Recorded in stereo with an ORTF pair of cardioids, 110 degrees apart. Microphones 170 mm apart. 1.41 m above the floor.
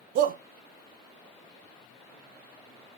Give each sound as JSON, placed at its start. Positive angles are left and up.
{"t": 0.1, "sound": "a shout", "azimuth_deg": -55, "distance_m": 0.6}